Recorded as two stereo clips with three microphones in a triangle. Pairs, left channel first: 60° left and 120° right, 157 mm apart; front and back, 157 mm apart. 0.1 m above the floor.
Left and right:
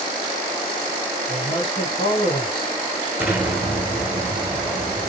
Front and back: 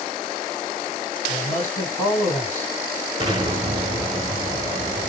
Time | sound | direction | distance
1.3 | a man speaking | 15° left | 2 m
3.2 | an explosion | 175° left | 0.8 m